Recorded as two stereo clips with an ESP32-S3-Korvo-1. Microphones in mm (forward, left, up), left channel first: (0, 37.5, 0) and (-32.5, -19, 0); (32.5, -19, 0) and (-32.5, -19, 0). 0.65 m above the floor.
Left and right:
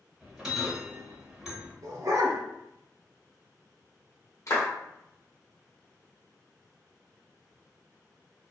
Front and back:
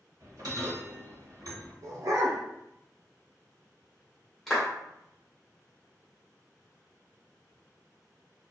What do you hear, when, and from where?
0.2 s a bell: 160° left, 1.0 m
1.8 s a dog barking: 150° right, 0.8 m
4.5 s a clap: 90° left, 1.0 m